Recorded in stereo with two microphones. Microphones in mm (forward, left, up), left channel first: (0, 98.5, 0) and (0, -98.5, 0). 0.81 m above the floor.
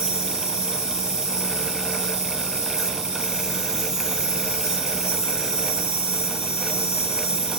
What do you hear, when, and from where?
0.0 s an insect: 15° left (ahead or behind), 1.1 m